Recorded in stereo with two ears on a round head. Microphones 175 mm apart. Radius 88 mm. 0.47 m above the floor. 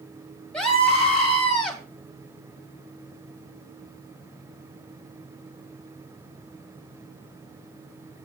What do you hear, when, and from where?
0.5 s a scream: 5° left (ahead or behind), 3 m